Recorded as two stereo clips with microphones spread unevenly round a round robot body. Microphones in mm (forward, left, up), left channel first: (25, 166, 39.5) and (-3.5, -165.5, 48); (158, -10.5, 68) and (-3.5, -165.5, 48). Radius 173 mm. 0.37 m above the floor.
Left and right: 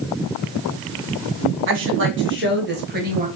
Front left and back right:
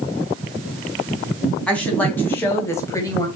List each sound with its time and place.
1.7 s a woman speaking: 40° right, 3 m; by 3.3 s 30° right, 2 m